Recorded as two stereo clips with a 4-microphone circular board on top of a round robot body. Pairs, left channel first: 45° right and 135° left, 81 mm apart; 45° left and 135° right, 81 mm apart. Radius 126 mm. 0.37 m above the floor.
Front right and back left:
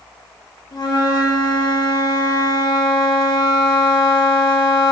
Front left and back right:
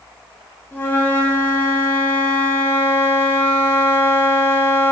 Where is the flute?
20° right, 1.0 m.